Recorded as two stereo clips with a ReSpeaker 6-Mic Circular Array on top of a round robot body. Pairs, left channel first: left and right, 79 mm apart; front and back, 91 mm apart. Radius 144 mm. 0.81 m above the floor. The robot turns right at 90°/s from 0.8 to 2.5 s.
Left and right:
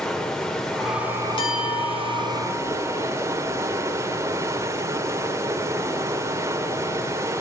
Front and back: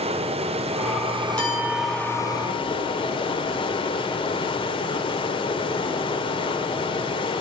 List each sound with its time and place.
0.0 s running water: 175° left, 1.3 m; by 7.4 s 30° right, 1.3 m
1.4 s a clink: 75° left, 6.5 m; by 3.0 s straight behind, 6.5 m